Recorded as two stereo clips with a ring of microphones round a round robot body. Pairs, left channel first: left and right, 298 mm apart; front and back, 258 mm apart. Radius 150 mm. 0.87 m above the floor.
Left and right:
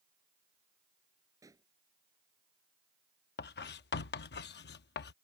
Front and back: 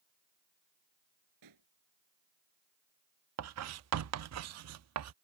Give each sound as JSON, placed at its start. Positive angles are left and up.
{"t": 1.4, "sound": "a pop", "azimuth_deg": -170}
{"t": 3.4, "sound": "writing", "azimuth_deg": 150}